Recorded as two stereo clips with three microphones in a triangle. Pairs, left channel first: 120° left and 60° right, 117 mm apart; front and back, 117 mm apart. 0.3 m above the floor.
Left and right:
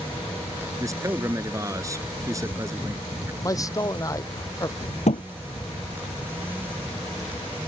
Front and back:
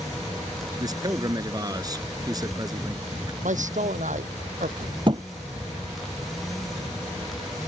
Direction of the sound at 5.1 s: 135° left.